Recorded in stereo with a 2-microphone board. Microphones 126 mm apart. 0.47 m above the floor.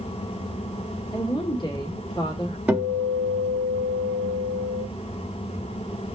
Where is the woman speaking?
35° left (ahead or behind), 1.6 m.